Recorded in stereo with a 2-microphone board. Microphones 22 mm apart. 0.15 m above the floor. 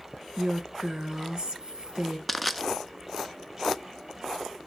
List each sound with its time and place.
0.4 s a woman speaking: 40° right (ahead or behind), 1.8 m
2.3 s crushing: 5° right (ahead or behind), 0.5 m